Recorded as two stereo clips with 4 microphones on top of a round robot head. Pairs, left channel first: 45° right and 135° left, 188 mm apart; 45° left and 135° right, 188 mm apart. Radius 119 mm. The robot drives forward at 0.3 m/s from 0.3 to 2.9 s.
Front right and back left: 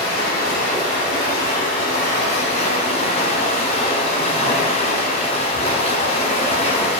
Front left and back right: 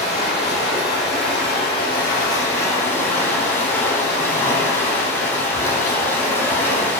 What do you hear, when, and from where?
0.0 s running water: 10° right, 1.4 m; by 7.0 s 25° right, 0.8 m